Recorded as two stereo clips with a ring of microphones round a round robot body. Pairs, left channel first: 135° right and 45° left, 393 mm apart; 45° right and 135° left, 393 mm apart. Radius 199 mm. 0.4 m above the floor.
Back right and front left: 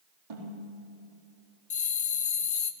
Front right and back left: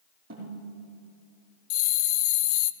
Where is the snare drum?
65° left, 4.5 m.